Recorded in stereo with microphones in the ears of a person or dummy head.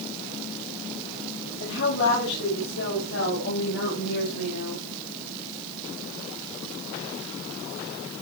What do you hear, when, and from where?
1.6 s a woman speaking: 65° left (ahead or behind), 6 m; by 4.8 s 80° left, 7 m